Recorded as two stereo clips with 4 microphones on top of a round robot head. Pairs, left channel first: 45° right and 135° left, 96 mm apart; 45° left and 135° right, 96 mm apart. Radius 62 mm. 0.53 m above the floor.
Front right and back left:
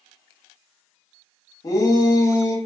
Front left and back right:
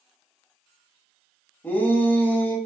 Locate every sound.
1.6 s a shout: 15° right, 0.8 m